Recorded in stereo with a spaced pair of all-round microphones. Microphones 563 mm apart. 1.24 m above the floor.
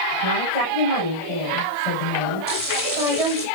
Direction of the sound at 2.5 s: 55° left (ahead or behind).